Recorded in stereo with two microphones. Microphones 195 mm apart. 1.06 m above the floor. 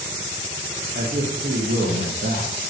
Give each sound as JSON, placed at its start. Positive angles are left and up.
{"t": 0.9, "sound": "a man speaking", "side_deg": -60, "distance_m": 1.3}